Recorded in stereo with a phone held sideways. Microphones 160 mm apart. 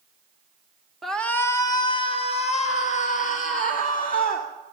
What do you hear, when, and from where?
1.0 s a shout: centre (ahead or behind), 0.9 m; by 4.5 s 60° left (ahead or behind), 2.5 m